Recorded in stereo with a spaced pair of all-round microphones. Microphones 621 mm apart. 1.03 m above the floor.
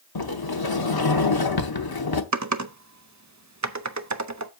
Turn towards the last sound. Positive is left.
turn(degrees=-30)  # may be behind; listen again after turning